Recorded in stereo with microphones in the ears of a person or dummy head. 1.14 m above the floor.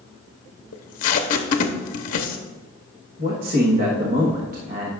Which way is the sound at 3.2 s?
40° right (ahead or behind).